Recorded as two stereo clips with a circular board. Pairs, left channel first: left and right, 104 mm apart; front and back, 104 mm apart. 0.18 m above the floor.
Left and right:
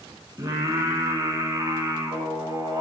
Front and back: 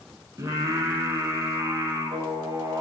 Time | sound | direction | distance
0.4 | singing | 135° right | 0.7 m